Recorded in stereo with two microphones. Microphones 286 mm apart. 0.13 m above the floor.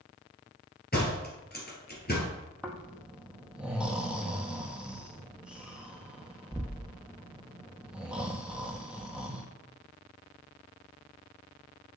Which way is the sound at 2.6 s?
5° right (ahead or behind).